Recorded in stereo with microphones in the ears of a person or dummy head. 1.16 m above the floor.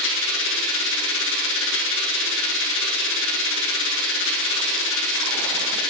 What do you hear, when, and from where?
0.0 s a machine running: 65° left (ahead or behind), 1.5 m